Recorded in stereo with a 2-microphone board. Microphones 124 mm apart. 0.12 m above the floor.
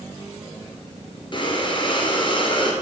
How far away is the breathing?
About 2.0 m.